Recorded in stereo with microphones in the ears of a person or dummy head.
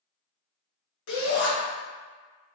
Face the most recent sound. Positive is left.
turn(degrees=80)